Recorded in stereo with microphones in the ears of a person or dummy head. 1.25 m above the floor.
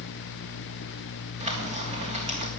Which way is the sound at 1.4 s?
30° right (ahead or behind).